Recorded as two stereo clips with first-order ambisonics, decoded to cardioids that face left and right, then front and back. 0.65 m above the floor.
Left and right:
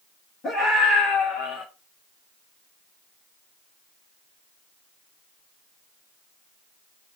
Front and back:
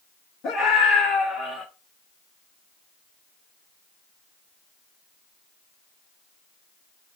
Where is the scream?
45° left, 1.6 m; by 1.6 s 85° left, 1.9 m.